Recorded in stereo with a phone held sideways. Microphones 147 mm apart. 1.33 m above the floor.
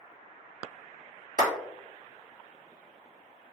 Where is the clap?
60° right (ahead or behind), 1.6 m.